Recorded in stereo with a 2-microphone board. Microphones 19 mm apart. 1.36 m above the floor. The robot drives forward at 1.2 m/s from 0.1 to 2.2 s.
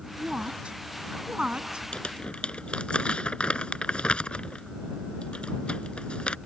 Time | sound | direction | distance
0.2 | a woman speaking | 70° right (ahead or behind) | ?
1.9 | crumpling | 80° left | ?